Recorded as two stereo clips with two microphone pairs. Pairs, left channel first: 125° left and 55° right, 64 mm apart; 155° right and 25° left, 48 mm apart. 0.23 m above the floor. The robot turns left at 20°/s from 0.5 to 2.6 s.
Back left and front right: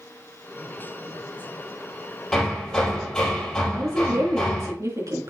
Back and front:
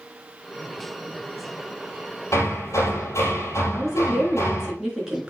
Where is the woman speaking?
50° right, 3.5 m.